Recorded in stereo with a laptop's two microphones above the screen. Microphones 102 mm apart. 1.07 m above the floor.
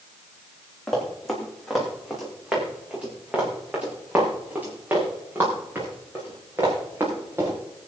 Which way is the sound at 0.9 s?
5° left (ahead or behind).